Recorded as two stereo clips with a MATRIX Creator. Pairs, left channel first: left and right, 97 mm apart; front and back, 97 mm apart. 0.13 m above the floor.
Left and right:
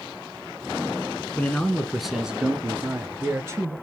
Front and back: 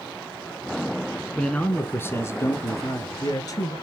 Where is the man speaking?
55° left, 1.1 m; by 3.7 s 35° right, 1.7 m.